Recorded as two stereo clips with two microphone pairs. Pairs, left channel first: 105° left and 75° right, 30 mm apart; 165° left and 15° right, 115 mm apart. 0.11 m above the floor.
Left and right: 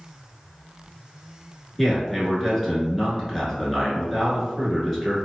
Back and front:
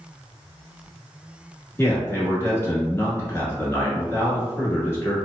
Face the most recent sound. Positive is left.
turn(degrees=-175)